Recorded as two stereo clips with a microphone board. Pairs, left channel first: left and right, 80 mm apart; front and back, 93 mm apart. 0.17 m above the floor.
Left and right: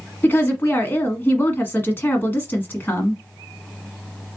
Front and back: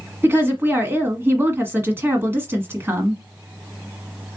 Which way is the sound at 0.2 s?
135° left.